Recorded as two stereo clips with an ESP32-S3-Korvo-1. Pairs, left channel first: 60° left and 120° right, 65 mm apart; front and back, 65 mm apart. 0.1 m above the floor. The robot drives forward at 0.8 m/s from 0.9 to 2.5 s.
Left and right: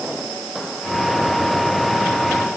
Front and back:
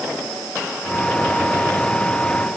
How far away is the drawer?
No drawer in this recording.